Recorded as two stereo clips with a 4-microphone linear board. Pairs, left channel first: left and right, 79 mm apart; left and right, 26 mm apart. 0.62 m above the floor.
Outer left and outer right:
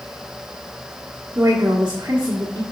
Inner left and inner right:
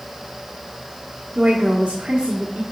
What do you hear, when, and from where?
1.4 s a woman speaking: 40° right (ahead or behind), 1.3 m